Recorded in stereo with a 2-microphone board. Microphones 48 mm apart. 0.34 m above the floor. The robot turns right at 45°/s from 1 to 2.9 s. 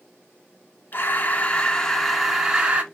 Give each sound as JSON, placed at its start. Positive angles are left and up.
{"t": 0.9, "sound": "breathing", "azimuth_deg": 125, "distance_m": 0.5}